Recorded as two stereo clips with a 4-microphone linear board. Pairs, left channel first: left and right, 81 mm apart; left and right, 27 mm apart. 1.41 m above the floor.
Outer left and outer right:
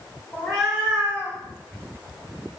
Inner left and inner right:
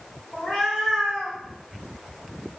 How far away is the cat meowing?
About 0.7 m.